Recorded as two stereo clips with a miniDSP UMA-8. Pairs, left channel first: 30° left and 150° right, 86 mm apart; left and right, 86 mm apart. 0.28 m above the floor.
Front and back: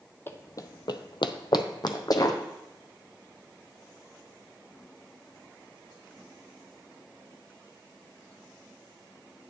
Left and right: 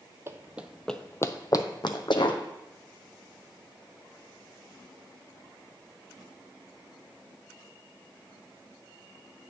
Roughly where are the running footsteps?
Ahead right.